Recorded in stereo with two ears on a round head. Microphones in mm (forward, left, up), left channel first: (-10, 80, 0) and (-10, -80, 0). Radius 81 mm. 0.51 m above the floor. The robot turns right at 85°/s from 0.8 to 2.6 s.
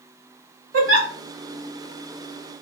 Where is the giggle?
85° right, 1.1 m; by 1.1 s 60° right (ahead or behind), 1.1 m.